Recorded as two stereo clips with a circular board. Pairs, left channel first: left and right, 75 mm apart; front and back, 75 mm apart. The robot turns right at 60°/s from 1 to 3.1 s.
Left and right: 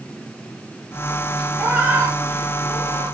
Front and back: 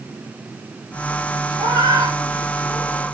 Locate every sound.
1.6 s a cat meowing: straight behind, 5 m; by 3.1 s 85° right, 5 m